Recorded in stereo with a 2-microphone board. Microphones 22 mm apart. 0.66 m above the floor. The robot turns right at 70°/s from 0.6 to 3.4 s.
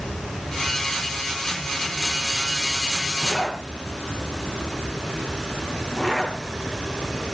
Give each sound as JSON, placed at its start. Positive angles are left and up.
{"t": 3.2, "sound": "a zipper", "side_deg": 30, "distance_m": 7.0}